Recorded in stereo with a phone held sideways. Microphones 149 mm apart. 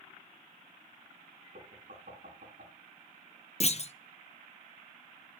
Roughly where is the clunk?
Left.